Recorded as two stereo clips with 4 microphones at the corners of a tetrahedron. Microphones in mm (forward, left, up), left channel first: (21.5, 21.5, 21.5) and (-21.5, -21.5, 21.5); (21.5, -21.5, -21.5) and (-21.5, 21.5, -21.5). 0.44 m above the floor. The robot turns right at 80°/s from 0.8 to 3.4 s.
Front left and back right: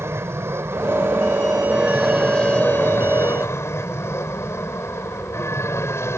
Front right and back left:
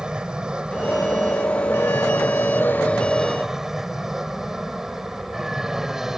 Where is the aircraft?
155° right; by 6.2 s 55° left.